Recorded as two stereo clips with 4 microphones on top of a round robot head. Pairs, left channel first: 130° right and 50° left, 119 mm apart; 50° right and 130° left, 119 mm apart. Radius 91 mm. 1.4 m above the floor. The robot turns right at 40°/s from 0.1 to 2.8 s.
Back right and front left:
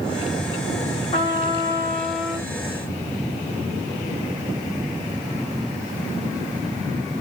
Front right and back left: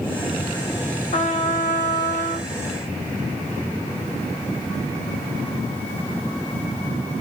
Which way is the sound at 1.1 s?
85° right.